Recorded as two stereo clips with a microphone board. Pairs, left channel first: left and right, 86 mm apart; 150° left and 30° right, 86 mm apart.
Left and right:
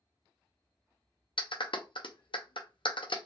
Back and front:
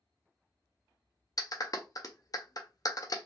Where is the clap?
105° left, 0.5 m.